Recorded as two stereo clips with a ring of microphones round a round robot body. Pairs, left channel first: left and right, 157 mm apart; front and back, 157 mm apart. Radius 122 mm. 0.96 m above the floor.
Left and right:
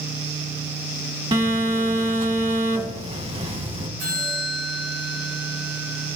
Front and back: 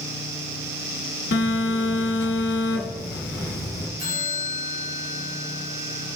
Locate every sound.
1.3 s a phone buzzing: 35° right, 1.2 m
4.0 s a bell: 140° right, 2 m